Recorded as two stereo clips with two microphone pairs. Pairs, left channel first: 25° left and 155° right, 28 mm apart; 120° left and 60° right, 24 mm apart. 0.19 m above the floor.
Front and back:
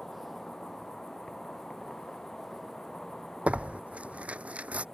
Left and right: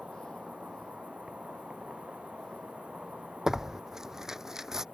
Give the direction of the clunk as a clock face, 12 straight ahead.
I don't hear a clunk.